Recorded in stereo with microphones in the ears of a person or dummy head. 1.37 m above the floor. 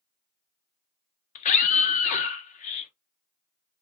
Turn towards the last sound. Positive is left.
turn(degrees=45)  # may be behind; listen again after turning